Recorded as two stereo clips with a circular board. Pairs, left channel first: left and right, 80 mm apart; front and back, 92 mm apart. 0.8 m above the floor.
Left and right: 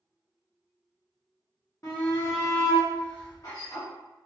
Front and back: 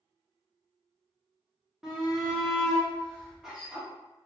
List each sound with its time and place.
1.8 s a shout: 100° left, 0.8 m